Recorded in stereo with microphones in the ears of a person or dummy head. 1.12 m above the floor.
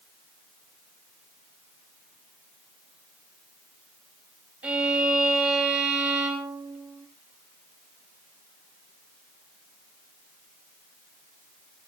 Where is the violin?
10° right (ahead or behind), 2.5 m.